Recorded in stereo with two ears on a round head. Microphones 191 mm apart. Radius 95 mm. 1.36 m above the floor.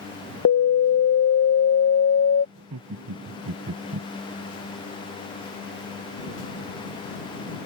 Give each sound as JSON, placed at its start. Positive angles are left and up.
{"t": 0.5, "sound": "an alarm", "side_deg": 70}
{"t": 2.5, "sound": "laughter", "side_deg": -75}